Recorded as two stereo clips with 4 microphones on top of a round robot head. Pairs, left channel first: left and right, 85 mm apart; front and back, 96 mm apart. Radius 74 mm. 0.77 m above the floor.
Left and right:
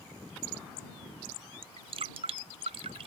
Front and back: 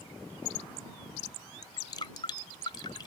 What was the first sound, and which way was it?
Dripping, 60° right.